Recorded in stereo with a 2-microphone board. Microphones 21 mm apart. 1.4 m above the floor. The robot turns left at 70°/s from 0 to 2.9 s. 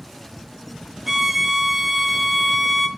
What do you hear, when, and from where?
1.1 s a violin: 20° right (ahead or behind), 0.9 m; by 2.9 s 15° left (ahead or behind), 0.9 m